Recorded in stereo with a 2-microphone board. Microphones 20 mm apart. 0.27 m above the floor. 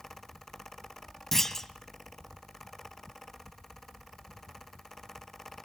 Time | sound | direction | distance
1.3 | a clunk | 20° left (ahead or behind) | 1.2 m